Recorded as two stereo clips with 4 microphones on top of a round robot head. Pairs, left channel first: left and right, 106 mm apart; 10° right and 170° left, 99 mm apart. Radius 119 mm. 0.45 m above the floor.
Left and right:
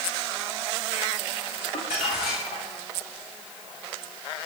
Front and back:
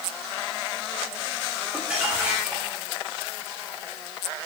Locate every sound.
1.7 s crumpling: 90° left, 7.5 m